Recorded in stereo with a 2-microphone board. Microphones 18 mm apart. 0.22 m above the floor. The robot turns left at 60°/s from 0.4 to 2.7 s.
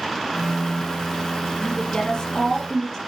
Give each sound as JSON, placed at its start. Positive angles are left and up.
{"t": 1.6, "sound": "a woman speaking", "azimuth_deg": 90, "distance_m": 4.5}